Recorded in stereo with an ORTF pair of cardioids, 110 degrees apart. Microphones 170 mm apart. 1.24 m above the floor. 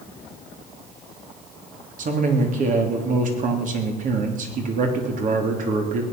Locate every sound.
2.0 s a man speaking: 50° right, 3 m